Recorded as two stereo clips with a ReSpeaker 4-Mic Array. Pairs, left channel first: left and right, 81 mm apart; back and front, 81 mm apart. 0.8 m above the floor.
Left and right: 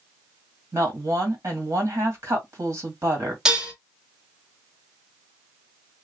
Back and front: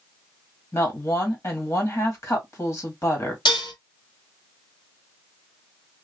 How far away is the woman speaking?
About 1.5 m.